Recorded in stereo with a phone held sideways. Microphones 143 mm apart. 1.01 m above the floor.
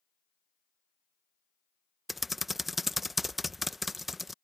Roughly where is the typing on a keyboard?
Centre.